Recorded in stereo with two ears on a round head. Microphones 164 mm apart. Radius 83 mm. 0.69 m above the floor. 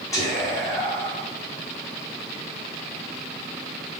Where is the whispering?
20° left (ahead or behind), 0.9 m.